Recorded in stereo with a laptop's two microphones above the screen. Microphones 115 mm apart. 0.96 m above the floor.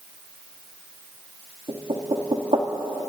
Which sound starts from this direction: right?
Knocking, at 1.7 s.